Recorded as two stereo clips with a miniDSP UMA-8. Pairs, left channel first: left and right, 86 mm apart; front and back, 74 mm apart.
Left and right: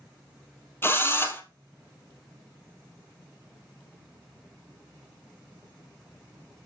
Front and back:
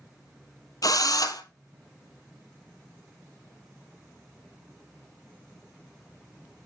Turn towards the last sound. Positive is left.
turn(degrees=30)